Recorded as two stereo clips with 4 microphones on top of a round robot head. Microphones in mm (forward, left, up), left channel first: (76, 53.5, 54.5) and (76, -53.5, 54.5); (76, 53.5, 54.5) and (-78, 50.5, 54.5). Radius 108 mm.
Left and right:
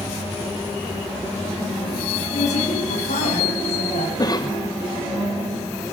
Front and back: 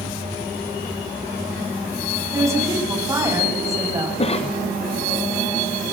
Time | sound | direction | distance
2.3 | a woman speaking | 110° left | 9 m
4.2 | a cough | 45° left | 1.2 m